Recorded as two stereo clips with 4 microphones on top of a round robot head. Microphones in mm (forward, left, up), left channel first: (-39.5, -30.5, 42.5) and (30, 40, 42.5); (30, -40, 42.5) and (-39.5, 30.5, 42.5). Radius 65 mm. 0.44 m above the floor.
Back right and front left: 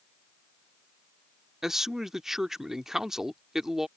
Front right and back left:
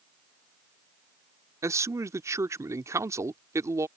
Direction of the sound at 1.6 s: 130° left.